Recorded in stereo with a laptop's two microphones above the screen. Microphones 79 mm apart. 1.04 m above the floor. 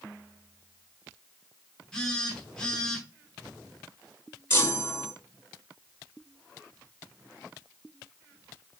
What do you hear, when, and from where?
1.9 s a phone buzzing: 10° left (ahead or behind), 1.0 m
4.5 s a chime: 30° left (ahead or behind), 1.4 m